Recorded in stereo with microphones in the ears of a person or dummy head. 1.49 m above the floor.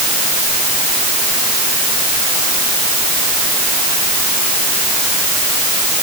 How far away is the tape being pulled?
I don't hear tape being pulled.